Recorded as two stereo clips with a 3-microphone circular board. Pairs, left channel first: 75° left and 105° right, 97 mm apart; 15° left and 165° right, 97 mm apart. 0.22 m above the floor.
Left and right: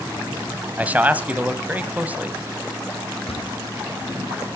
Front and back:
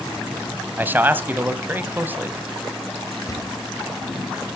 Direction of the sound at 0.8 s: 145° right.